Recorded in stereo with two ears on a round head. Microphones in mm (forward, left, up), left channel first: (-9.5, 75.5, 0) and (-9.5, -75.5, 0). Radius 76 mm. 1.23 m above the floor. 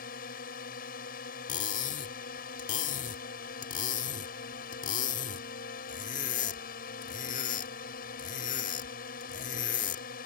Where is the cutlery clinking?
45° left (ahead or behind).